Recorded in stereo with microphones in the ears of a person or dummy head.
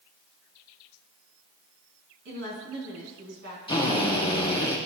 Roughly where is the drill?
Left.